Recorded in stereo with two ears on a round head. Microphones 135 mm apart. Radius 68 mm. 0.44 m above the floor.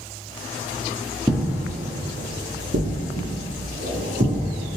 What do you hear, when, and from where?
1.3 s footsteps: 10° right (ahead or behind), 0.7 m; by 4.8 s 80° right, 2.5 m